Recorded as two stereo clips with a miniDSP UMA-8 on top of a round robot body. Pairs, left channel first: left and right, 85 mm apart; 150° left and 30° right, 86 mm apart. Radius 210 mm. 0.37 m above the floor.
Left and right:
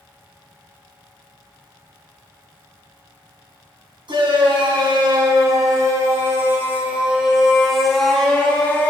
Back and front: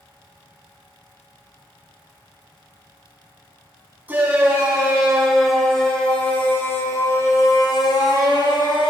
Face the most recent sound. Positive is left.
turn(degrees=160)